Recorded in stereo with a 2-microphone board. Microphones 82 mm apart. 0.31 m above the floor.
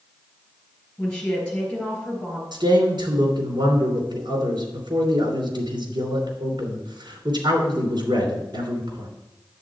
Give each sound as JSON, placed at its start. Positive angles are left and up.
{"t": 1.0, "sound": "a woman speaking", "side_deg": 10, "distance_m": 5.5}
{"t": 2.5, "sound": "a man speaking", "side_deg": -65, "distance_m": 3.0}